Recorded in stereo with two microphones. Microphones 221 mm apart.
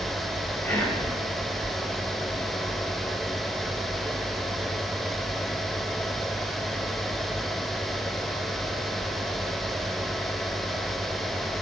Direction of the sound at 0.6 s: 10° left (ahead or behind).